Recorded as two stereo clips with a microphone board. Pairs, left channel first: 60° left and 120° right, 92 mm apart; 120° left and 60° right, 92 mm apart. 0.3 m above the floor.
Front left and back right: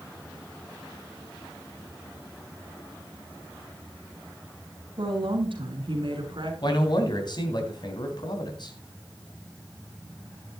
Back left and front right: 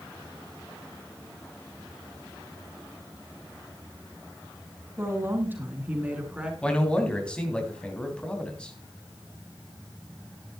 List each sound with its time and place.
5.0 s a woman speaking: 120° right, 3 m; by 6.5 s 140° right, 3.5 m
6.6 s a man speaking: 40° left, 3 m